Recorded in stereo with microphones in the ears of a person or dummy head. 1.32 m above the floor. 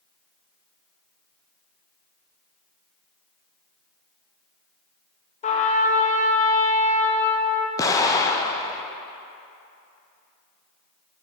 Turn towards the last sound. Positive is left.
turn(degrees=20)  # may be behind; listen again after turning